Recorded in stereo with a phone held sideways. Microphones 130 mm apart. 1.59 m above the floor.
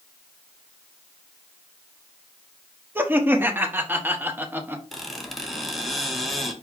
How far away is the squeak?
About 0.8 m.